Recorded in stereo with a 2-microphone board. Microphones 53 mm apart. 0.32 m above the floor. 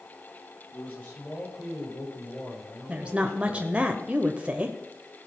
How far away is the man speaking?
About 7.5 m.